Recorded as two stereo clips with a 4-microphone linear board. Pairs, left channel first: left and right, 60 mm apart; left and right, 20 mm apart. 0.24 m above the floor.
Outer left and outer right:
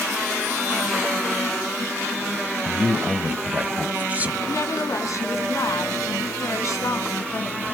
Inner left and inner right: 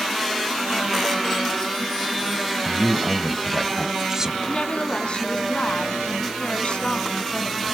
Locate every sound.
2.6 s a man speaking: 25° right (ahead or behind), 1.1 m
4.5 s a woman speaking: 60° left (ahead or behind), 2 m